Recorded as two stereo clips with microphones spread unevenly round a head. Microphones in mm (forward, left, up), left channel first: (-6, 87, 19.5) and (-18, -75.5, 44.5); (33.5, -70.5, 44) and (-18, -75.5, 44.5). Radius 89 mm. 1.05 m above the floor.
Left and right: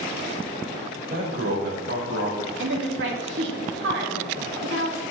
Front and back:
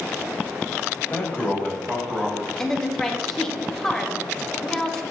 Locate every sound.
1.0 s a man speaking: 50° right, 4.5 m; by 2.5 s 70° right, 5.5 m
2.6 s a woman speaking: 75° right, 2 m